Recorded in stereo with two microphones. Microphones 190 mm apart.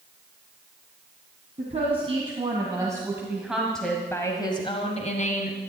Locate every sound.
1.6 s a woman speaking: 35° right (ahead or behind), 3 m; by 5.6 s 50° left (ahead or behind), 2 m